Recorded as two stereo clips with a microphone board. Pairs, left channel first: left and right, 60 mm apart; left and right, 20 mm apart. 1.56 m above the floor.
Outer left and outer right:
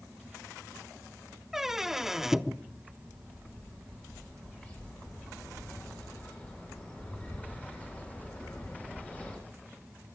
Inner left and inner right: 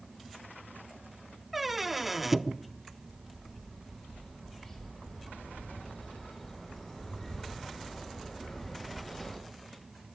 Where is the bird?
25° left (ahead or behind), 6 m.